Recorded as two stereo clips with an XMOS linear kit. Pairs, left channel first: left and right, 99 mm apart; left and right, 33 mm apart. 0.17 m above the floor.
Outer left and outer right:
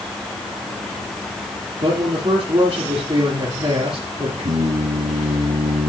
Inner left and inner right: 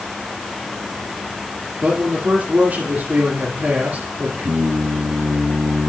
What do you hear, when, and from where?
1.8 s a man speaking: 45° right (ahead or behind), 3 m
4.4 s singing: 80° right, 3 m